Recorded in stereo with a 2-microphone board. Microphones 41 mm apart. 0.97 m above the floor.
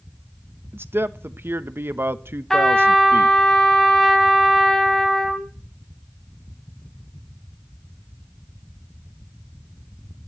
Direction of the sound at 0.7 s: 60° right (ahead or behind).